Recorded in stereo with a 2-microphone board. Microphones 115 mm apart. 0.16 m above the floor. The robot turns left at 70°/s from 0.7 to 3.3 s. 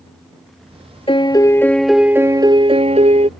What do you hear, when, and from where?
1.1 s a piano: 60° left; by 3.3 s 100° right